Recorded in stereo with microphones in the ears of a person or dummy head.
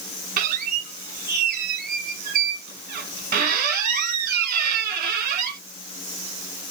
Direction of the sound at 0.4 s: 45° right (ahead or behind).